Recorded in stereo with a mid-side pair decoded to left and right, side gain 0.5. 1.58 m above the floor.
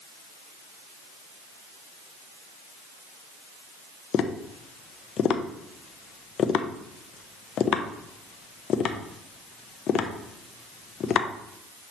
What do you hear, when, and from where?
4.1 s tapping: 55° left, 0.8 m